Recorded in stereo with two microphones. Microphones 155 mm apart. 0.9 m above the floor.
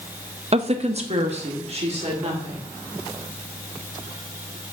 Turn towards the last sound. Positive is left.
turn(degrees=-45)  # may be behind; listen again after turning